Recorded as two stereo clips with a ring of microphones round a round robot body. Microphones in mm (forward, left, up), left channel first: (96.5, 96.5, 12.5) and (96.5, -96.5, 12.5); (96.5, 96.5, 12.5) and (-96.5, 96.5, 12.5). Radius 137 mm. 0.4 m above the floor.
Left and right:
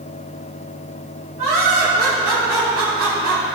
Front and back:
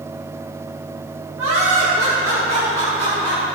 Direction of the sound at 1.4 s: 155° right.